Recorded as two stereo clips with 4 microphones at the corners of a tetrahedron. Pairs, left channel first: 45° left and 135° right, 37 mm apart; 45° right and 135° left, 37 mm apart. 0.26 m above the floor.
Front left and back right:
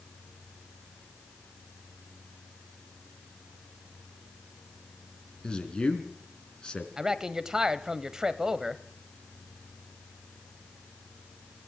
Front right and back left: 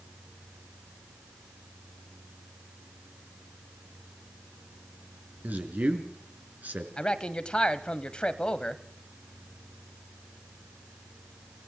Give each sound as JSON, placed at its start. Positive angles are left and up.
{"t": 5.4, "sound": "a man speaking", "azimuth_deg": 110, "distance_m": 3.5}
{"t": 7.0, "sound": "a man speaking", "azimuth_deg": -80, "distance_m": 1.0}